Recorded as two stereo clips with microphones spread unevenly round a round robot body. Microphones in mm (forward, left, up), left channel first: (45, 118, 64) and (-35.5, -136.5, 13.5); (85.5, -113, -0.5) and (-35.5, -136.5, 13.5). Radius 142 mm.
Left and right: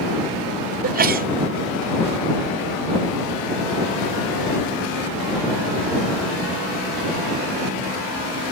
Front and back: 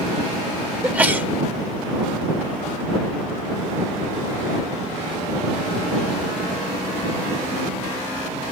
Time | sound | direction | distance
0.8 | a sneeze | 90° right | ?